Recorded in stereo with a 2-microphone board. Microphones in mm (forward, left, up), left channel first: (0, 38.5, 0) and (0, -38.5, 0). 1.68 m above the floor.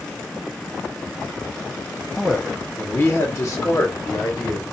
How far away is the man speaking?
About 0.7 m.